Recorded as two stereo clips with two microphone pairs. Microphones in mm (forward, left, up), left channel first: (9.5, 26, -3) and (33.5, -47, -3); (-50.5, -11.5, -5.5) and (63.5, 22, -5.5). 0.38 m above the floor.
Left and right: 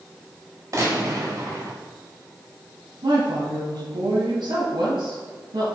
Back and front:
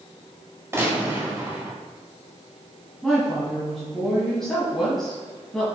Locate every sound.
0.7 s a gunshot: 45° right, 2 m
3.0 s a woman speaking: 75° right, 2.5 m